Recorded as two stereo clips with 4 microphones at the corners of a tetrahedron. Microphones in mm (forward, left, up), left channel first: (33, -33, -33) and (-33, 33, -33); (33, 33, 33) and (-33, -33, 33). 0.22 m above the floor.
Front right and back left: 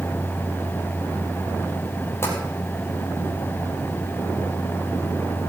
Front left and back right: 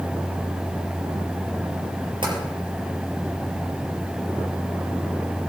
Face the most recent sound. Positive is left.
turn(degrees=-105)